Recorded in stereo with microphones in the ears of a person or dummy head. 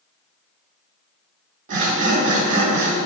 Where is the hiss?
No hiss in this recording.